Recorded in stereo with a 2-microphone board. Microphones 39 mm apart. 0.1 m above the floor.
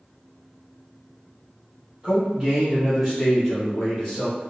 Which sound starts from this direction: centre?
A man speaking, at 2.0 s.